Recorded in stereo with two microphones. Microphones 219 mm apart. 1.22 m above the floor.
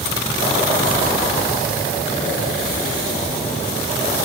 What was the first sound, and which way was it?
Only background noise.